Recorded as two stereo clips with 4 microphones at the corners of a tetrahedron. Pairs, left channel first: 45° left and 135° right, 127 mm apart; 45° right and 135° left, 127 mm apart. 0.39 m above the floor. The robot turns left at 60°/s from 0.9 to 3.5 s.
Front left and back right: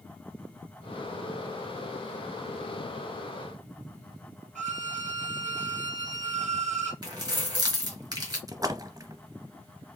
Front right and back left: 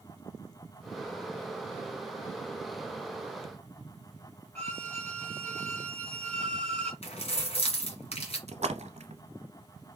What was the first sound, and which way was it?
A violin, 120° right.